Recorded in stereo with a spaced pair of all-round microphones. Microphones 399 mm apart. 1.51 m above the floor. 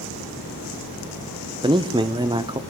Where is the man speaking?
10° right (ahead or behind), 0.7 m.